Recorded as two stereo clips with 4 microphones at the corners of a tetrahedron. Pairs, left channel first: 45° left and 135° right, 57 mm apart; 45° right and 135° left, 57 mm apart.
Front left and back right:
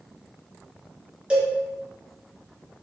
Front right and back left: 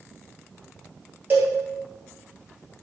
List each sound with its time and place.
1.3 s a cowbell: 160° left, 1.5 m